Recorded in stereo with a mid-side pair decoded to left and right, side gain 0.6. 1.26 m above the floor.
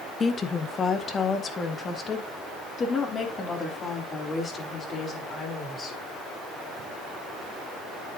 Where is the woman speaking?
30° left, 1.4 m; by 6.0 s 35° left, 5 m.